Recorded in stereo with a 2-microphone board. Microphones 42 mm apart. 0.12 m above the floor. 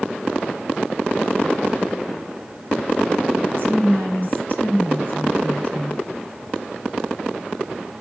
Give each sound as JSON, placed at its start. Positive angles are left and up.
{"t": 3.6, "sound": "a woman speaking", "side_deg": 45, "distance_m": 2.5}